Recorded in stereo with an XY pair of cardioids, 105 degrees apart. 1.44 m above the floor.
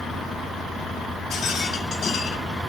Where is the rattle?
55° left, 2.5 m.